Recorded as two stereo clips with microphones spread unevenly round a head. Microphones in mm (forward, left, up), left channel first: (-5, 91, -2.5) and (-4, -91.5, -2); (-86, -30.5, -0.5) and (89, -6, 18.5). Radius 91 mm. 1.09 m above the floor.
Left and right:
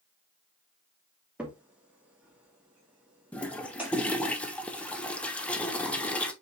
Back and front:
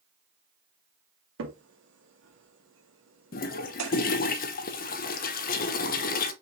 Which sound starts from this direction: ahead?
A crack, at 1.4 s.